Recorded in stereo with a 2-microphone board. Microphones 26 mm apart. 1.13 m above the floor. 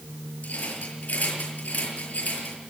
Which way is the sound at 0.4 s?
80° left.